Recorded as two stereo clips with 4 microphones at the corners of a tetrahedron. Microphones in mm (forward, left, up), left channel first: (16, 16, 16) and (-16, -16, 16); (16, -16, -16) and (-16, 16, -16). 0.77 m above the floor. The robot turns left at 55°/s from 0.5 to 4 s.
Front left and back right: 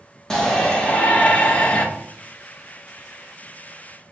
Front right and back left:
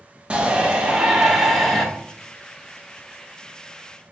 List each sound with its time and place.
0.3 s a shout: 110° left, 1.0 m; by 1.9 s 35° left, 1.0 m